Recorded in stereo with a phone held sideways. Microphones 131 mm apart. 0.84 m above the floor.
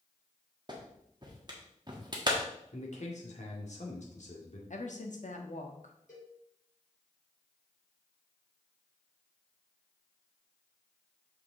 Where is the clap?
35° right (ahead or behind), 1.4 m.